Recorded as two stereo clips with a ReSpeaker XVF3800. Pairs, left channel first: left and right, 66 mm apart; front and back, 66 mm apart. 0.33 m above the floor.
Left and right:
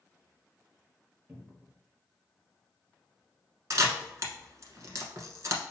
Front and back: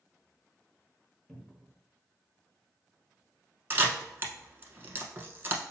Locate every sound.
1.3 s a cupboard door: 80° right, 1.1 m
3.7 s a camera shutter: 125° right, 1.0 m